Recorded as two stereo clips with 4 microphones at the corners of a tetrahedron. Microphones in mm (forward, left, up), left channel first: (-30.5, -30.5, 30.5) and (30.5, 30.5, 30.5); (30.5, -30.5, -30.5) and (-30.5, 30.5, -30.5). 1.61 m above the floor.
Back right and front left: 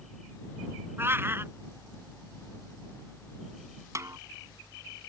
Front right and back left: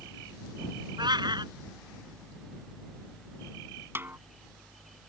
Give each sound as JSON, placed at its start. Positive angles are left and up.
{"t": 1.0, "sound": "a cat meowing", "azimuth_deg": 110}
{"t": 4.0, "sound": "a snare drum", "azimuth_deg": 80}